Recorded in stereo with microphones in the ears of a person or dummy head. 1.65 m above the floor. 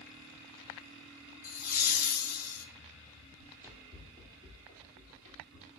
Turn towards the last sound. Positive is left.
turn(degrees=-40)  # may be behind; listen again after turning